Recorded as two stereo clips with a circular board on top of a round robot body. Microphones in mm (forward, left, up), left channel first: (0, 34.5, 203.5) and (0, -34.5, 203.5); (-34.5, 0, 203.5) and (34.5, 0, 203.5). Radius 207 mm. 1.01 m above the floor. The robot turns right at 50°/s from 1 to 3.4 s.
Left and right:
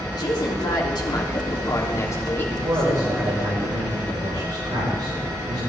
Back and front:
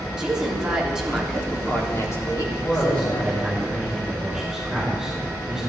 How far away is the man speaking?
About 6 m.